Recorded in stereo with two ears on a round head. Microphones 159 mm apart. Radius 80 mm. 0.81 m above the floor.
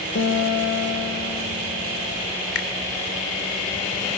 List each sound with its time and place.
0.1 s a guitar: 75° left (ahead or behind), 2.5 m
2.5 s a finger snap: 70° left (ahead or behind), 2.5 m